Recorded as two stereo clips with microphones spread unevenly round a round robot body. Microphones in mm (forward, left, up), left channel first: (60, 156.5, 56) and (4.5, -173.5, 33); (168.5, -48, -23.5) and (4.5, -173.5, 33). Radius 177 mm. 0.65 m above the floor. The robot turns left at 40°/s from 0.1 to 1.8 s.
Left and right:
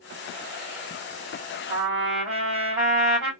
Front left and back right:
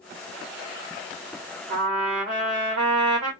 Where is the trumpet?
Straight behind, 1.8 m; by 3.3 s 175° left, 1.8 m.